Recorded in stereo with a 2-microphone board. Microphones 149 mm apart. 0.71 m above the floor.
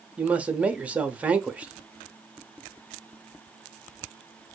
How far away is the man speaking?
About 0.7 m.